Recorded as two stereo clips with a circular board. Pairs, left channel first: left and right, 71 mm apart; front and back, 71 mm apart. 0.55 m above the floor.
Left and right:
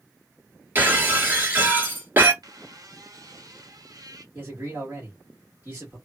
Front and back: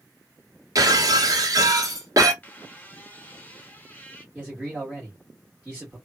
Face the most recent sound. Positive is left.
turn(degrees=-120)